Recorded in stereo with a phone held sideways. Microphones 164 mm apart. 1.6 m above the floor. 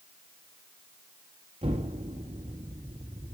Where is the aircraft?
I don't hear an aircraft.